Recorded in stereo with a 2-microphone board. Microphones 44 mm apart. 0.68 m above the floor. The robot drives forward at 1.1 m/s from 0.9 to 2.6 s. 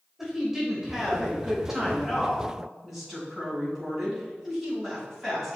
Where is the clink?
I don't hear a clink.